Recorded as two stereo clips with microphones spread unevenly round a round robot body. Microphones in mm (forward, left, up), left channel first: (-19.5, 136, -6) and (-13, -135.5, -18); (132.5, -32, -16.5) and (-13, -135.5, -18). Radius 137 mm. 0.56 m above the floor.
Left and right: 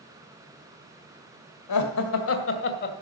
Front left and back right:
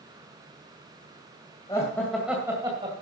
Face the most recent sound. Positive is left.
turn(degrees=145)